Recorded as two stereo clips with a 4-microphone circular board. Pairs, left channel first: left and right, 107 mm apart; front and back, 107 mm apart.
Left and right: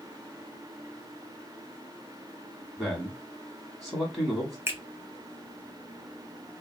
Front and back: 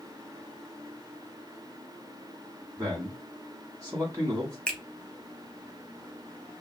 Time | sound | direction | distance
2.8 | a man speaking | straight behind | 1.1 m
4.7 | a finger snap | 65° right | 0.8 m